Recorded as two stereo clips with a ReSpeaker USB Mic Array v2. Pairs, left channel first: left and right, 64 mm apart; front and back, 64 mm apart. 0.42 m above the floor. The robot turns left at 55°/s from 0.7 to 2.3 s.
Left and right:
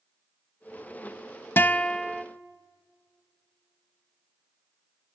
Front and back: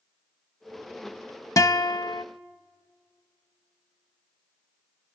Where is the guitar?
30° left, 0.6 m; by 2.2 s 5° right, 0.6 m.